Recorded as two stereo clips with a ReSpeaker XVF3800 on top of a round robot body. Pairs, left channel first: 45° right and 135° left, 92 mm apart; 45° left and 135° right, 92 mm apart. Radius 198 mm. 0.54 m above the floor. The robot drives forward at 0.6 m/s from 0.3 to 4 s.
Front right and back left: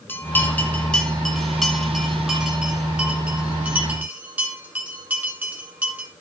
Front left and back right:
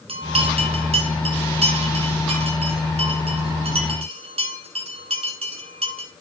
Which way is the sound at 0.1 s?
115° right.